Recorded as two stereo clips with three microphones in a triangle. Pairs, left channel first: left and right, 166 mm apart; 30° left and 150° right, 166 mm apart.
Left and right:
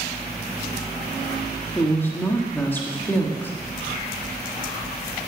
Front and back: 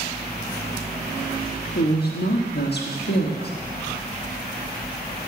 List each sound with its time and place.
1.8 s a woman speaking: 10° left, 1.6 m